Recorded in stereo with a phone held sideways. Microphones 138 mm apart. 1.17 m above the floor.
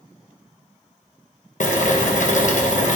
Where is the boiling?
65° left (ahead or behind), 0.8 m.